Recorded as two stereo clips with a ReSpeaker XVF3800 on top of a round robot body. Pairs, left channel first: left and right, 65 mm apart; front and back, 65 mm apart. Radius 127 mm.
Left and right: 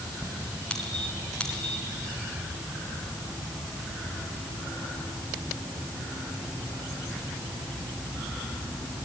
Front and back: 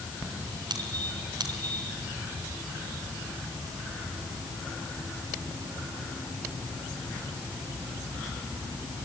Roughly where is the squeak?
Behind.